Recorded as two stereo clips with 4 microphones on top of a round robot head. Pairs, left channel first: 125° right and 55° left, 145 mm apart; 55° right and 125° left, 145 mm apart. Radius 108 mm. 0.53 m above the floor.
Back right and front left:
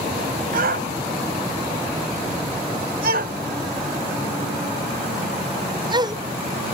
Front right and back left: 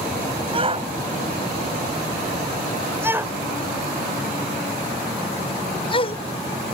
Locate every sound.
0.5 s a shout: 75° left; by 6.2 s 10° right